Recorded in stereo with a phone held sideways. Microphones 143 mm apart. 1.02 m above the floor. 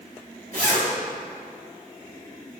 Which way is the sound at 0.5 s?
75° right (ahead or behind).